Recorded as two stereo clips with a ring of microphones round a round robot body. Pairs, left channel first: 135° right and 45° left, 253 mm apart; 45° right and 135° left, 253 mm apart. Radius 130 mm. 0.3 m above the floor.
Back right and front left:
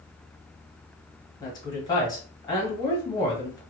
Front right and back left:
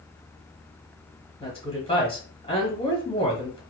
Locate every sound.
1.4 s a woman speaking: 80° right, 1.2 m